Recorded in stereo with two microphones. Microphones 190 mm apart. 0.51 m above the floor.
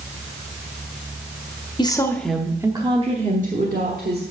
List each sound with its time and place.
1.8 s a woman speaking: 25° left (ahead or behind), 0.8 m; by 4.2 s 55° right (ahead or behind), 1.4 m